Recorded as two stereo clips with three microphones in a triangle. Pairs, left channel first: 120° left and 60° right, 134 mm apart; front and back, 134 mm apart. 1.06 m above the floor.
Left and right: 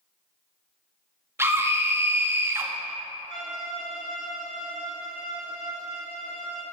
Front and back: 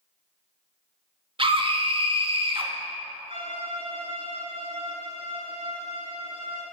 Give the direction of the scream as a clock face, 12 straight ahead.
4 o'clock.